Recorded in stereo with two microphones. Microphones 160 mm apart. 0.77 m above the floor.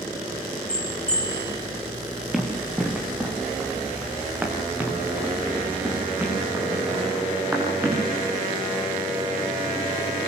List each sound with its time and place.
0.7 s a bell: 5° left (ahead or behind), 4.5 m
2.3 s running footsteps: centre (ahead or behind), 4 m; by 8.0 s 15° right (ahead or behind), 10 m